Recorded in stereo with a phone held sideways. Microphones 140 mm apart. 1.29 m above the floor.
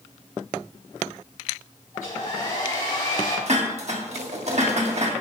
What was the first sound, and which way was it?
A hair dryer, 65° left (ahead or behind).